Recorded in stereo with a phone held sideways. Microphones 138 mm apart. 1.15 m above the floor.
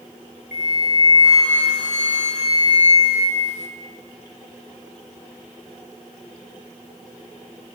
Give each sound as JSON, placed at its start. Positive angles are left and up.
{"t": 0.5, "sound": "a flute", "side_deg": 60, "distance_m": 0.8}